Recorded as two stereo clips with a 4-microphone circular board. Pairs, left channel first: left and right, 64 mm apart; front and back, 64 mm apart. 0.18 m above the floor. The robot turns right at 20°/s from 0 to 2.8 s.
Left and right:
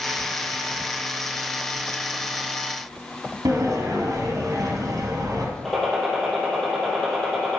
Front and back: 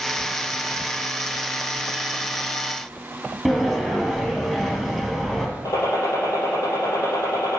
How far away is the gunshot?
About 4 m.